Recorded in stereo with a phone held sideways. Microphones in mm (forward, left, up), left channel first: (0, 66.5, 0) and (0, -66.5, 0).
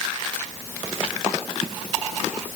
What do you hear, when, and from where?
Only background noise.